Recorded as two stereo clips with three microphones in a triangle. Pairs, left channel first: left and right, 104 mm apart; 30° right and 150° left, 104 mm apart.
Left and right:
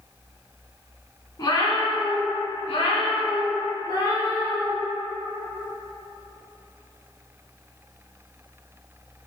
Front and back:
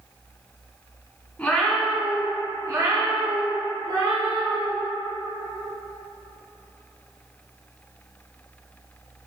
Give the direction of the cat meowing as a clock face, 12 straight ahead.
11 o'clock.